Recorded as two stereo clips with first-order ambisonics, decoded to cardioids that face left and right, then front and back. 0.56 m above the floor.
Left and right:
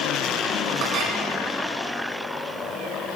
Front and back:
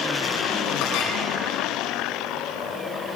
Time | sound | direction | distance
0.8 | a clink | 35° right | 3 m